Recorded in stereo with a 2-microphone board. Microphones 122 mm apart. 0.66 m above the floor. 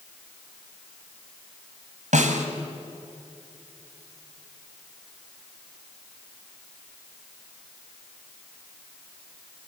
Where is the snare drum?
85° right, 2.5 m.